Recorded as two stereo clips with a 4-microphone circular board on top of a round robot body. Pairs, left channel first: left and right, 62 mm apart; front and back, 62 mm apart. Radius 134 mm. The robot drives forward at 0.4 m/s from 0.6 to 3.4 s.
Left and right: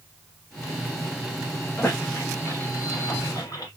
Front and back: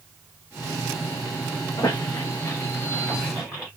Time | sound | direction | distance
1.8 | a squeak | 35° left | 0.9 m